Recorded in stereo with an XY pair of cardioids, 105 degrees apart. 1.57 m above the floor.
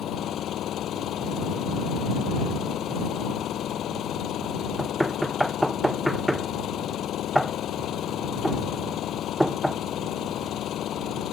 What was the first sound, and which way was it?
An engine running, 70° left.